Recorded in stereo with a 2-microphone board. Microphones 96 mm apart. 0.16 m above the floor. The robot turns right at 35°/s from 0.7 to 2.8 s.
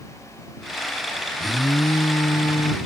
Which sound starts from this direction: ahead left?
An alarm, at 1.4 s.